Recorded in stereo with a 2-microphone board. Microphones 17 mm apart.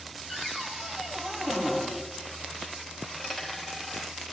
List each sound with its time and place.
0.3 s a cupboard door: 50° right (ahead or behind), 3.5 m
3.0 s a dropped coin: centre (ahead or behind), 4 m